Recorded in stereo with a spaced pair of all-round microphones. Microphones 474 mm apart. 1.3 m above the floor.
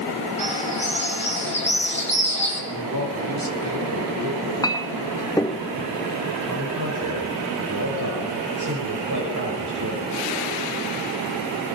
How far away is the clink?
About 1.0 m.